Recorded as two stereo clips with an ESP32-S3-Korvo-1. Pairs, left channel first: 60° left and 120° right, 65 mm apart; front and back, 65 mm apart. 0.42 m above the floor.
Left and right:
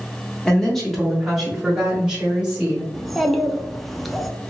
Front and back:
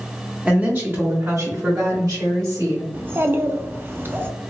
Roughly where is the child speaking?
Behind left.